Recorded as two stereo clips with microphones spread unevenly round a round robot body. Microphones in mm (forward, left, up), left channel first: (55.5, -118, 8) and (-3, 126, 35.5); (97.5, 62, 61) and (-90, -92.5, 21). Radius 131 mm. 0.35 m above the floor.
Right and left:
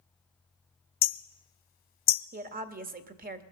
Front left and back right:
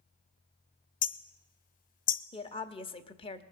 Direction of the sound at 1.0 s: 20° right.